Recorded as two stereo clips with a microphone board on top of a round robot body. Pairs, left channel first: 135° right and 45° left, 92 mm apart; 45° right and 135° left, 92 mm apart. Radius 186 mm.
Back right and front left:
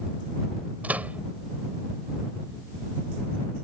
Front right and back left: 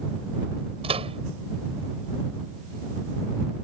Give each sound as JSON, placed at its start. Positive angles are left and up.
{"t": 0.8, "sound": "a microwave", "azimuth_deg": 120}